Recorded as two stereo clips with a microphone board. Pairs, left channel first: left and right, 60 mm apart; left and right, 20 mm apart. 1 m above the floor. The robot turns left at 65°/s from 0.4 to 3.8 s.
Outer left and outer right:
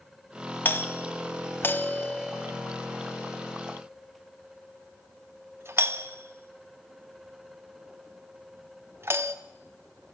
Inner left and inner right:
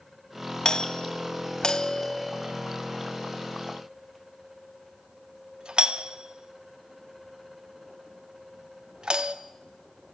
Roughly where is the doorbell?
Left.